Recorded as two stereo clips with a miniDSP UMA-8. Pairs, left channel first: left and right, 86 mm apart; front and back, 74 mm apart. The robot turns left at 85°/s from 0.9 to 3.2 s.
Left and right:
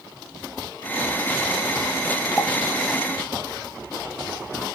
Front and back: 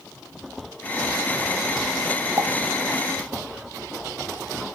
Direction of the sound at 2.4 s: 165° left.